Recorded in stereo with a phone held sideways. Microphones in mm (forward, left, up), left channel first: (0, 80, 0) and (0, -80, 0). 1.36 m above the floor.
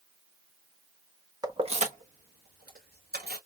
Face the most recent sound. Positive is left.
turn(degrees=-80)